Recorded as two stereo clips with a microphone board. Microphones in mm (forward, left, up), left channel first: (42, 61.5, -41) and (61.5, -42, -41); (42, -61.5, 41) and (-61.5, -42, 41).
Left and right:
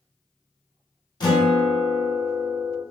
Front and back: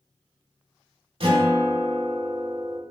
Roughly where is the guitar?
Behind left.